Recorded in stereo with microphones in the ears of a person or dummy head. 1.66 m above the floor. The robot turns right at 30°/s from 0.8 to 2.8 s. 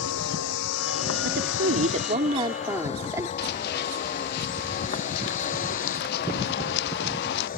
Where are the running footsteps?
60° left (ahead or behind).